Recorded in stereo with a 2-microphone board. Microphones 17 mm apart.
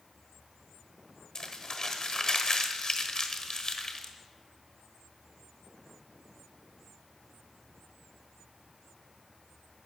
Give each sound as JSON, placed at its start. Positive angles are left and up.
{"t": 1.4, "sound": "crumpling", "side_deg": 40, "distance_m": 1.2}